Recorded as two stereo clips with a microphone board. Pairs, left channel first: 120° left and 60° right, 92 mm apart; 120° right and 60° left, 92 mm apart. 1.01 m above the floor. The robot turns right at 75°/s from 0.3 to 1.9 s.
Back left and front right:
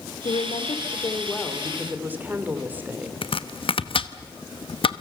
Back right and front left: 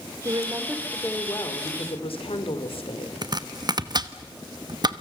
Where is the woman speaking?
110° left, 3 m; by 3.1 s 130° right, 3 m.